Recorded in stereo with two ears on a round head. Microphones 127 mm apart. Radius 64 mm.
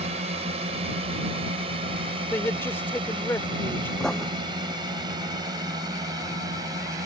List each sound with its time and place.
0.0 s a drone: 50° right (ahead or behind); by 7.1 s 25° right (ahead or behind)
2.3 s a man speaking: 15° left (ahead or behind)
4.0 s writing: 5° left (ahead or behind)